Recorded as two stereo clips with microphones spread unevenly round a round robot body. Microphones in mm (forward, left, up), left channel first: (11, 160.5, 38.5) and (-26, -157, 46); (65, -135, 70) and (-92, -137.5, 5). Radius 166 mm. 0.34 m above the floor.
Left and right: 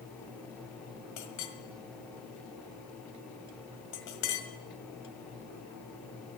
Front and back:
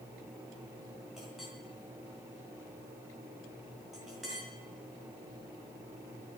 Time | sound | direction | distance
1.2 | a clink | 105° left | 1.7 m